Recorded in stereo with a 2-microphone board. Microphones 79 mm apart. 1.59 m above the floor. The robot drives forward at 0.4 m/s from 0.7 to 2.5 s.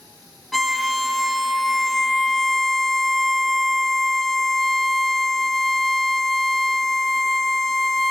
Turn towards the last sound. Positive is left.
turn(degrees=0)  # may be behind; listen again after turning